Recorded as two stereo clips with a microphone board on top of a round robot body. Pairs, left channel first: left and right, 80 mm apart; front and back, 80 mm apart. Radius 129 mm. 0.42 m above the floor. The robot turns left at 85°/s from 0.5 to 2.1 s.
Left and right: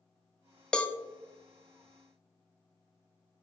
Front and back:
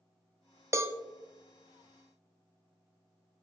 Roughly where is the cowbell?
Behind.